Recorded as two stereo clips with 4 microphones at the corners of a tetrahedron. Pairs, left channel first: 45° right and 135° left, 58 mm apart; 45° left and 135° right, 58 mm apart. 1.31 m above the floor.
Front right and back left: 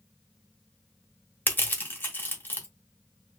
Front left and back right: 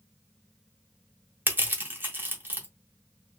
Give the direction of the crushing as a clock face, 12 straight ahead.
3 o'clock.